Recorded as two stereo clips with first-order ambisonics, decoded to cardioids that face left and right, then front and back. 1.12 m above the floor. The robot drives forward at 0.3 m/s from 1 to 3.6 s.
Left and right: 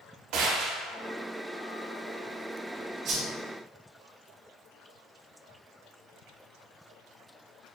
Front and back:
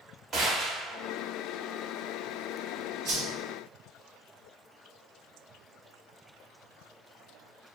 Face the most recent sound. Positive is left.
turn(degrees=-140)